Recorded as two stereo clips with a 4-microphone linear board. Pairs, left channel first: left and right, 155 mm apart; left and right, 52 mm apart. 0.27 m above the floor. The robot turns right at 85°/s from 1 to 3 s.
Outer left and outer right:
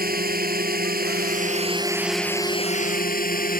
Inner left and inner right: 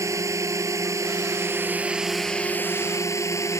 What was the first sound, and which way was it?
A drone, 95° right.